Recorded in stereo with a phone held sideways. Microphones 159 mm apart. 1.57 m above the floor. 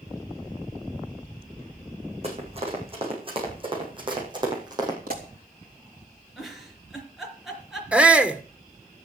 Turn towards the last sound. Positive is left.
turn(degrees=-5)  # may be behind; listen again after turning